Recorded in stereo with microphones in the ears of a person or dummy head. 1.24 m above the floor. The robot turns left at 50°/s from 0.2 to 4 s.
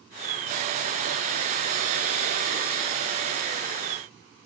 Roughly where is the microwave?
No microwave in this recording.